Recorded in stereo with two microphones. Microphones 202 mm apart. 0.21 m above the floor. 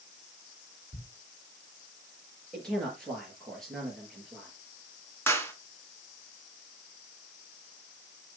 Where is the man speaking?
Centre (ahead or behind), 4.5 m.